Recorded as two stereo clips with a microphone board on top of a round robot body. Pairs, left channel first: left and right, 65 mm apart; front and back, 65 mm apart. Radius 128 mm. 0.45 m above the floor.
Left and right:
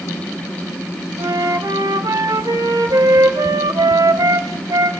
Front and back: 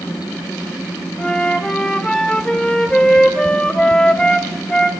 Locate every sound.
1.2 s a flute: 75° right, 2.5 m